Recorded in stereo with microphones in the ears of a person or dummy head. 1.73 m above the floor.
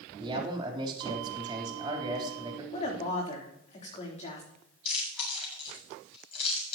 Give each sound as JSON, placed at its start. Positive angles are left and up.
{"t": 0.2, "sound": "a man speaking", "side_deg": -25, "distance_m": 3.5}
{"t": 2.7, "sound": "a woman speaking", "side_deg": 35, "distance_m": 3.5}
{"t": 4.8, "sound": "chewing", "side_deg": 35, "distance_m": 7.0}